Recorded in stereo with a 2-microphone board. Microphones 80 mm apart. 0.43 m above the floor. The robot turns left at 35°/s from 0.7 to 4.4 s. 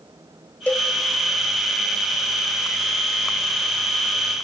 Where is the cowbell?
20° left (ahead or behind), 1.2 m; by 0.9 s 10° left (ahead or behind), 1.2 m.